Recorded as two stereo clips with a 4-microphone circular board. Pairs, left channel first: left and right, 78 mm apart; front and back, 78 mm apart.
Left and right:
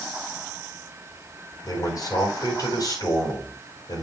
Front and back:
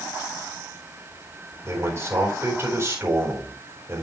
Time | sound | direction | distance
1.6 | a man speaking | 125° left | 4 m